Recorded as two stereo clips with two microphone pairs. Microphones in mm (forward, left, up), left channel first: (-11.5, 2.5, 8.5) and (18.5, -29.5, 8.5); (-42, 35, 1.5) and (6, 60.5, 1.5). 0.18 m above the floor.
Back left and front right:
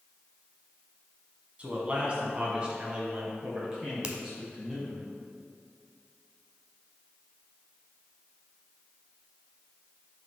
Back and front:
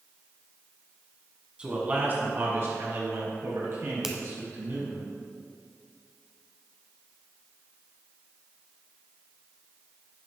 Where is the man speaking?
25° right, 1.6 m; by 5.0 s 30° left, 4 m.